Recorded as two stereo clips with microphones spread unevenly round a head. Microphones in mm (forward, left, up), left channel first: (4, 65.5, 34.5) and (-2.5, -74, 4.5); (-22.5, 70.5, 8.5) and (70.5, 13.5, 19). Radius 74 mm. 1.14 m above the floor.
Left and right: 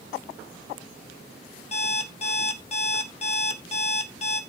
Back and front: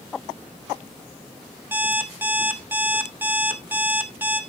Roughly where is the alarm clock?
Ahead left.